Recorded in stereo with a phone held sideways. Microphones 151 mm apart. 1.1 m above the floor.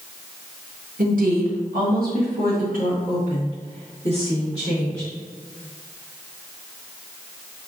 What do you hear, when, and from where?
1.0 s a woman speaking: 65° right (ahead or behind), 1.1 m; by 5.1 s 40° right (ahead or behind), 2 m